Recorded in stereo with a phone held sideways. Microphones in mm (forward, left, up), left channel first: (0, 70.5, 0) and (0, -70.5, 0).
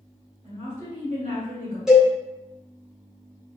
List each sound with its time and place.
0.4 s a woman speaking: 65° right (ahead or behind), 1.9 m
1.9 s a cowbell: 5° right (ahead or behind), 1.6 m